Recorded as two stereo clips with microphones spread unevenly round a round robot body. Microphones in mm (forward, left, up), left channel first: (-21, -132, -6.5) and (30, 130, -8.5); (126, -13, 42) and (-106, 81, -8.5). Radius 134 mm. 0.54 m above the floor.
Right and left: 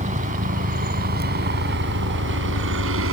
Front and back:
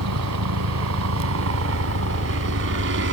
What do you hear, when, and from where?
0.0 s a helicopter: 140° left; by 3.1 s 120° left